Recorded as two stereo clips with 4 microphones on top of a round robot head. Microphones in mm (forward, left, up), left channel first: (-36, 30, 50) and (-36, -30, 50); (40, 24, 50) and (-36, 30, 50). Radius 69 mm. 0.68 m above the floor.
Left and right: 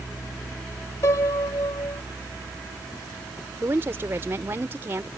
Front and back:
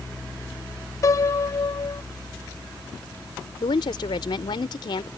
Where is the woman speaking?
35° right.